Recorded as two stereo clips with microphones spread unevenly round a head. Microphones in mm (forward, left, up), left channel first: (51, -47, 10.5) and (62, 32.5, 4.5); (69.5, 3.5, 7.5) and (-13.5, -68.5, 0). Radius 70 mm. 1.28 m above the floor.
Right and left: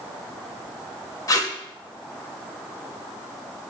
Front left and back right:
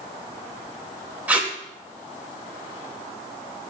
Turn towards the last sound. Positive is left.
turn(degrees=-60)